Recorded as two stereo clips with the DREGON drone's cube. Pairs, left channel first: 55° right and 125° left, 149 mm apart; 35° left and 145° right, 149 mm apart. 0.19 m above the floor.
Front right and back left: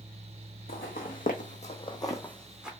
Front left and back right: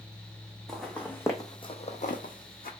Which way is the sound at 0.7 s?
55° right.